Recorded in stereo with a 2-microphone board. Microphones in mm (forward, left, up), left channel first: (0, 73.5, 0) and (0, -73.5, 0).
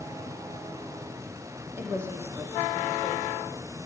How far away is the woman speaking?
About 5.5 m.